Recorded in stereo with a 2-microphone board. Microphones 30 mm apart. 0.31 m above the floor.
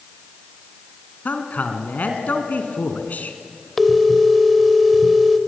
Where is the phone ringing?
Centre (ahead or behind), 0.9 m.